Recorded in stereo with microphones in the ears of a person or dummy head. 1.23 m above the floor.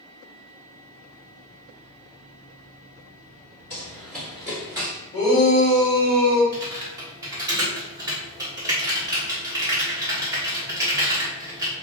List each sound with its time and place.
3.7 s running footsteps: 20° left (ahead or behind), 1.7 m; by 4.9 s 10° right (ahead or behind), 1.4 m
5.1 s a shout: 30° left (ahead or behind), 1.4 m
6.5 s typing on a keyboard: 15° right (ahead or behind), 1.0 m